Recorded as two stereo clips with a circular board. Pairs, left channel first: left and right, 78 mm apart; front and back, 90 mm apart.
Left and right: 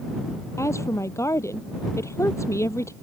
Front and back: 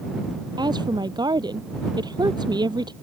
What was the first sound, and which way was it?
A woman speaking, 140° left.